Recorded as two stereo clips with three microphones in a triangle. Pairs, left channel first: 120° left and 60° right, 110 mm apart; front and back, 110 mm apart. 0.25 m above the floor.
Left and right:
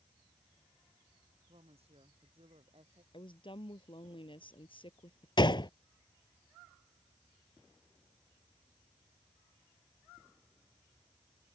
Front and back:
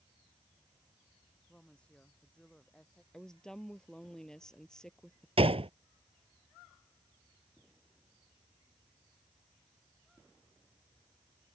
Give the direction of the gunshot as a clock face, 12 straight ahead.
7 o'clock.